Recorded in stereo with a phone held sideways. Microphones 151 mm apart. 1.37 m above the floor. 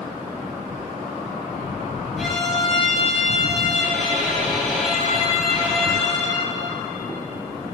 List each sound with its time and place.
2.2 s a violin: centre (ahead or behind), 4 m